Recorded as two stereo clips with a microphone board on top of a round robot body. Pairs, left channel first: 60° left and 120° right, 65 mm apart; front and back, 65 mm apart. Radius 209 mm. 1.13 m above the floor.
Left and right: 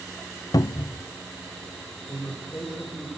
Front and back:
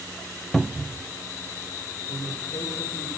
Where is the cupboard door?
90° left, 0.6 m.